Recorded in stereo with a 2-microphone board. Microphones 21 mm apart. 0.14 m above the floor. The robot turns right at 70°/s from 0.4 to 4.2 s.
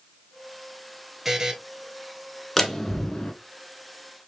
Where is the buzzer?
15° right (ahead or behind), 0.7 m; by 1.5 s 30° right (ahead or behind), 0.7 m.